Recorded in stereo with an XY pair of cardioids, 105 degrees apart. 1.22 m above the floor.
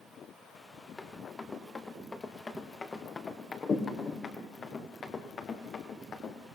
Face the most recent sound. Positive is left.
turn(degrees=50)